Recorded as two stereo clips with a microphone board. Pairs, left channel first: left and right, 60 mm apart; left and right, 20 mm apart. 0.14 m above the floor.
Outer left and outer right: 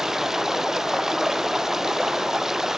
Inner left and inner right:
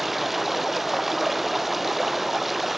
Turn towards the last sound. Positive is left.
turn(degrees=-5)  # may be behind; listen again after turning